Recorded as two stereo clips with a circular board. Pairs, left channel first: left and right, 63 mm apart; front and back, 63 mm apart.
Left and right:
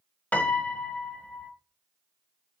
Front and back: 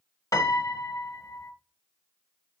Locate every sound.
0.3 s a piano: 25° left, 1.0 m